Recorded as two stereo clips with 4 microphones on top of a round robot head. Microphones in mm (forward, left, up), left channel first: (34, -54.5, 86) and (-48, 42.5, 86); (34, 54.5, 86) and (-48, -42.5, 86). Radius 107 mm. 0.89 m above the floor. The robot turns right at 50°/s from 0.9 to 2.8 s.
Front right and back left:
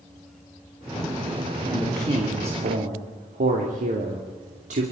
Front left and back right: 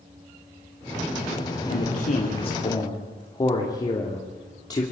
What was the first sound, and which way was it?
A man speaking, 55° left.